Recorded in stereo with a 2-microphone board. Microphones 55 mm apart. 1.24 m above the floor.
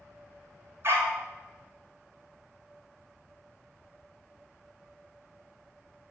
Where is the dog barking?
50° right (ahead or behind), 1.8 m.